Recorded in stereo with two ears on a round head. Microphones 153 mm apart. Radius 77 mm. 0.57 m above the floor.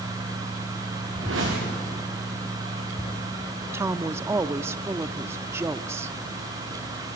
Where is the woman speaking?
15° right (ahead or behind), 0.6 m.